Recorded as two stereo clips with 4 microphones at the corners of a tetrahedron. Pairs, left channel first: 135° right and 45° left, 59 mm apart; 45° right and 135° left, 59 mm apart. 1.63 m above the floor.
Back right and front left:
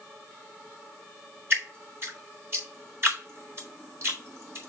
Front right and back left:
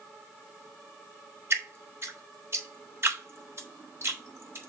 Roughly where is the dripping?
Left.